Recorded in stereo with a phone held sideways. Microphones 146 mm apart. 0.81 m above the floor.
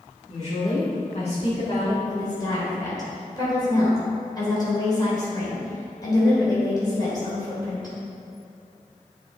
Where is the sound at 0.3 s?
50° left (ahead or behind), 2.5 m; by 1.9 s 40° left (ahead or behind), 1.5 m.